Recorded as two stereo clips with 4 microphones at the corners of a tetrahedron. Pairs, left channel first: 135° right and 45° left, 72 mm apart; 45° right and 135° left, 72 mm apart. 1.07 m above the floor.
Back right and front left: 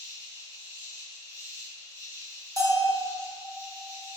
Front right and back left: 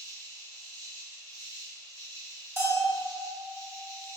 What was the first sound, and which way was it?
An insect, straight ahead.